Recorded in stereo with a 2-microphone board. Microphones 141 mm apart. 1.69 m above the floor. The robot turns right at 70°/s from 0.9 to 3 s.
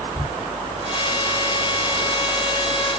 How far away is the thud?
About 1.7 m.